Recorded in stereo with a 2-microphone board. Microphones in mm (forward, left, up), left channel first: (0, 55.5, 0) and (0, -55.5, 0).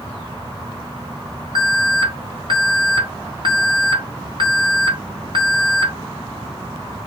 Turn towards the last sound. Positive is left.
turn(degrees=-50)  # may be behind; listen again after turning